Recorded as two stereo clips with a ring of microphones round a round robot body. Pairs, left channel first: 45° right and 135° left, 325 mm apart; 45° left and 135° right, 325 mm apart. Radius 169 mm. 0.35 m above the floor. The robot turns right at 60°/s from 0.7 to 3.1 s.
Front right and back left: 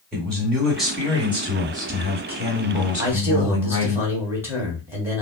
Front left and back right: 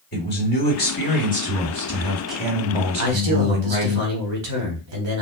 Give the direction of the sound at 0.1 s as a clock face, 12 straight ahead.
11 o'clock.